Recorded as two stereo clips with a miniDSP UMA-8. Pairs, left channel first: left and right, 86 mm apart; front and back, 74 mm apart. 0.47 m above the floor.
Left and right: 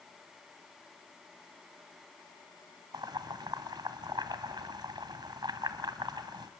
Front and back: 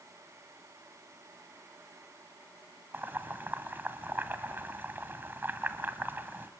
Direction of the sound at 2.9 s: 115° right.